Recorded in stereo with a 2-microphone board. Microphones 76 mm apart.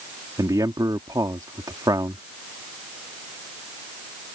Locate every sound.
0.4 s a man speaking: 60° right (ahead or behind)